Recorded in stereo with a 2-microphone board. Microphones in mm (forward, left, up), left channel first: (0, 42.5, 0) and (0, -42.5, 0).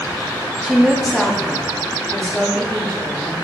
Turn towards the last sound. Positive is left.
turn(degrees=10)  # may be behind; listen again after turning